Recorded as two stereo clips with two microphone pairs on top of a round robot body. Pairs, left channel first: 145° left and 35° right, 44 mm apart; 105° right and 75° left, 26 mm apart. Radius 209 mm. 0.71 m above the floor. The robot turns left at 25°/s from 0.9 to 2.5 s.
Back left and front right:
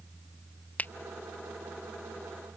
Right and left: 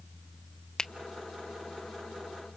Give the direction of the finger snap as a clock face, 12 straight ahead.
6 o'clock.